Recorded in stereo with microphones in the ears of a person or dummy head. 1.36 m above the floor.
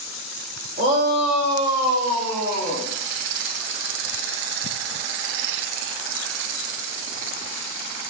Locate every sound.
0.8 s a shout: 50° right (ahead or behind), 2.5 m; by 2.9 s 20° right (ahead or behind), 2.5 m